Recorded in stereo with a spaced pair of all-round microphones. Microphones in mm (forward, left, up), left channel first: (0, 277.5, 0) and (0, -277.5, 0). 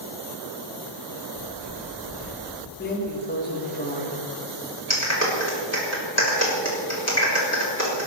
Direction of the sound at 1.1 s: 65° left (ahead or behind).